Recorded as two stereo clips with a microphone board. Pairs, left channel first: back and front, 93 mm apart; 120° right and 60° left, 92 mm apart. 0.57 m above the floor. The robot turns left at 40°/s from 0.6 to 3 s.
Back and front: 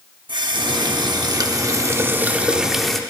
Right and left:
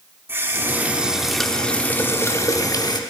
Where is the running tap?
Straight ahead, 0.8 m; by 3.0 s 95° right, 0.8 m.